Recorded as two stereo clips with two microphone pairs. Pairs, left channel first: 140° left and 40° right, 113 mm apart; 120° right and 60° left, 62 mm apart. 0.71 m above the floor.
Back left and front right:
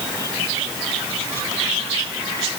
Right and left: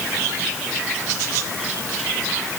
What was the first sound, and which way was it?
Only background noise.